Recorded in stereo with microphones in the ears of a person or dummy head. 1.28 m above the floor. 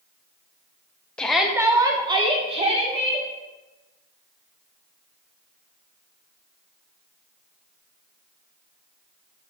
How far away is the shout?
About 0.7 m.